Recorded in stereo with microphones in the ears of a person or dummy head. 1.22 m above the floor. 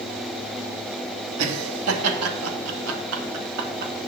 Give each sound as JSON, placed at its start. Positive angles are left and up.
{"t": 1.4, "sound": "laughter", "side_deg": -75, "distance_m": 2.5}